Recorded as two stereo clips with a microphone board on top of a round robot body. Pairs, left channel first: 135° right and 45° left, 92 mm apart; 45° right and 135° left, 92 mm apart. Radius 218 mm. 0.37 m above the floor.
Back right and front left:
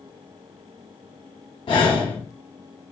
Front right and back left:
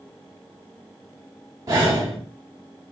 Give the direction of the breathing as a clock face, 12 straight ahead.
6 o'clock.